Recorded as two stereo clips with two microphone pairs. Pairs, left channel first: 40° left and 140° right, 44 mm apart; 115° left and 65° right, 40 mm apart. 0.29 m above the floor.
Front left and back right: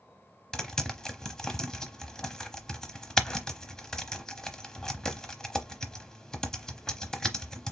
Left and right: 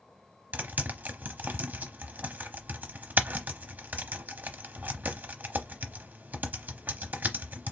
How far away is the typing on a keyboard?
About 0.8 m.